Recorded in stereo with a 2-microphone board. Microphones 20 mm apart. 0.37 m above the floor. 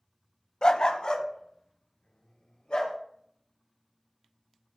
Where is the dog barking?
45° left (ahead or behind), 0.7 m; by 3.0 s 60° left (ahead or behind), 3.5 m.